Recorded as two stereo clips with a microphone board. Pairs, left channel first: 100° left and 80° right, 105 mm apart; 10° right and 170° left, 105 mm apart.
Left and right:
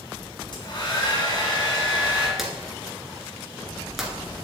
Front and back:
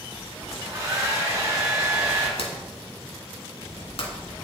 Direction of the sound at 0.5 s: 120° left.